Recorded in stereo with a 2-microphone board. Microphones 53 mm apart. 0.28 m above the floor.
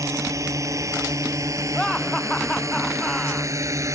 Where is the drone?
75° right (ahead or behind); by 4.0 s 70° right (ahead or behind).